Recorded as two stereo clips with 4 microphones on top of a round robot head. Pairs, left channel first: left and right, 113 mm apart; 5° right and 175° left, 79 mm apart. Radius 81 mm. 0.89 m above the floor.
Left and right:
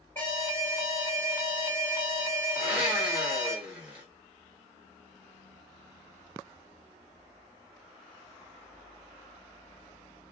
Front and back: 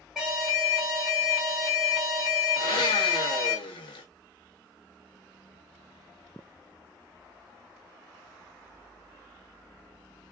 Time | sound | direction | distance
0.1 | an alarm | 95° left | 1.4 m
2.6 | a blender | 10° right | 0.5 m